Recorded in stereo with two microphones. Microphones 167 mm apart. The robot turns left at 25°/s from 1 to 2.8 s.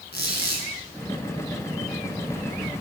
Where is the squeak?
80° left, 4.5 m.